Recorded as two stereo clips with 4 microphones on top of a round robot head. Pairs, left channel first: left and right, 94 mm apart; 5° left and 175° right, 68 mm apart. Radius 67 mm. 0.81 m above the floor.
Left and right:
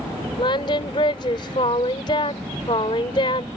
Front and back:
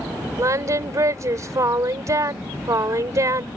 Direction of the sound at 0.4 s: 140° left.